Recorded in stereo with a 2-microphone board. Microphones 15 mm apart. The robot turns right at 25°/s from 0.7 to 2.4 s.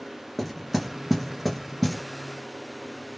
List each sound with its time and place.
0.4 s knocking: 5° right (ahead or behind), 1.7 m; by 2.0 s 20° left (ahead or behind), 1.7 m